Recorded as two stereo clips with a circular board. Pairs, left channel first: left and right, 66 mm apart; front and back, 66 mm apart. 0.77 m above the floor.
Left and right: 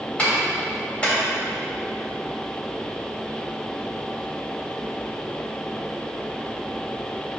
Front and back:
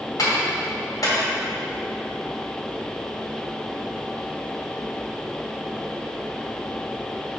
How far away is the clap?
About 2.5 m.